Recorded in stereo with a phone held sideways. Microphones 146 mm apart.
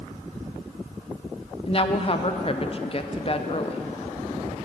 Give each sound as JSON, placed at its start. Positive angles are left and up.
{"t": 1.7, "sound": "a woman speaking", "side_deg": 40, "distance_m": 0.5}